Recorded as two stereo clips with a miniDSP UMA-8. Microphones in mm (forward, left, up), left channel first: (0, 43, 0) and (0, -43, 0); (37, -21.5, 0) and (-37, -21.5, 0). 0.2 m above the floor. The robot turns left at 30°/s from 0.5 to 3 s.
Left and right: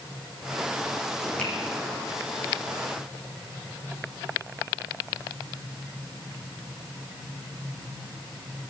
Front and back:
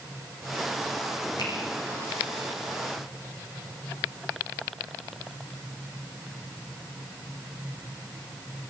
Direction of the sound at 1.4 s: 15° left.